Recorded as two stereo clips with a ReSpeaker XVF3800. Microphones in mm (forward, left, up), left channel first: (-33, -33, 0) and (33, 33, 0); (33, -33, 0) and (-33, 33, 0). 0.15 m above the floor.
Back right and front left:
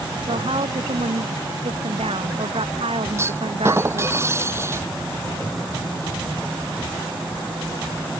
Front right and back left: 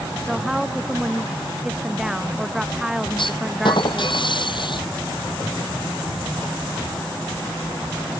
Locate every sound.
0.3 s a woman speaking: 50° left
3.2 s a clunk: 15° right